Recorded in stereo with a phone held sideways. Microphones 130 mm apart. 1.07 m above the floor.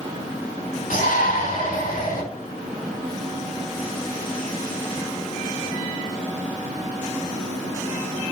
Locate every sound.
0.9 s a shout: 80° left, 3 m; by 2.2 s 85° left, 2.5 m